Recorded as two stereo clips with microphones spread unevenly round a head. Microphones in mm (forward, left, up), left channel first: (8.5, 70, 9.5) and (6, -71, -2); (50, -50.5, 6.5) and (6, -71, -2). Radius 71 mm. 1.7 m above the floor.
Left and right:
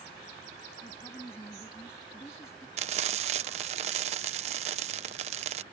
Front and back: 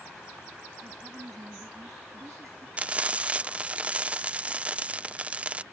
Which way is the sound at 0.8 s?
165° left.